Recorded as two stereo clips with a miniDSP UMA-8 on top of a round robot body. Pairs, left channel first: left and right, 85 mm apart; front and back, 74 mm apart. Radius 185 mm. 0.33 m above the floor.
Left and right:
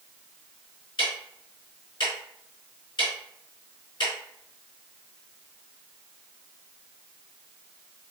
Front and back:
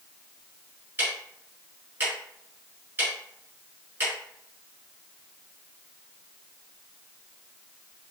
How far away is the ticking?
About 1.1 m.